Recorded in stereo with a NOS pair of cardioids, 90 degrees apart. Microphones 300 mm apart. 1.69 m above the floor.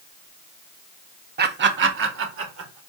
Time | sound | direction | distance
1.4 | laughter | 30° right | 0.6 m